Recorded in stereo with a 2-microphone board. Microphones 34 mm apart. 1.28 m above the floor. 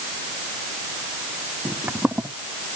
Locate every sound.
1.6 s footsteps: 55° right (ahead or behind)